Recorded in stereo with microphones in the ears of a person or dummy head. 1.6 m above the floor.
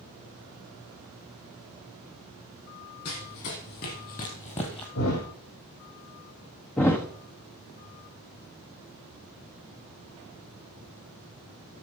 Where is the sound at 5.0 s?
75° left (ahead or behind), 6.5 m.